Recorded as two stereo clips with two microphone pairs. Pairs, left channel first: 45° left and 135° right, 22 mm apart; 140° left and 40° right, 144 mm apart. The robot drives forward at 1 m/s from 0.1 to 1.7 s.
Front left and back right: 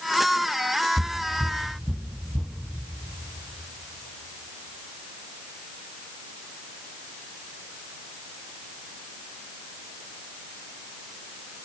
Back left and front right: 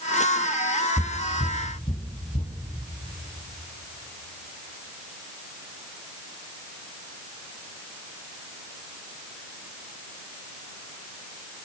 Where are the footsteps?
150° left, 1.9 m; by 2.5 s 140° left, 3 m.